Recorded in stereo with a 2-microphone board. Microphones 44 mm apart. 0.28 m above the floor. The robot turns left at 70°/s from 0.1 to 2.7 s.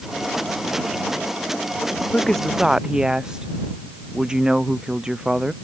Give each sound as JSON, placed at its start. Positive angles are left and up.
{"t": 2.1, "sound": "a woman speaking", "azimuth_deg": 25}